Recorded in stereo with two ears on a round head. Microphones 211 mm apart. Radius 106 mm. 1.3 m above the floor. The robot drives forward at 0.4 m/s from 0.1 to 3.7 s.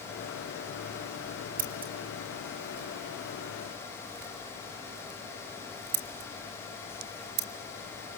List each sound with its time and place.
1.6 s scissors: 35° right (ahead or behind), 3 m; by 7.5 s 50° right (ahead or behind), 2.5 m